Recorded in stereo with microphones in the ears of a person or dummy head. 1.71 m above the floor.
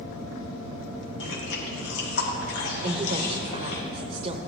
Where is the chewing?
75° left (ahead or behind), 2 m.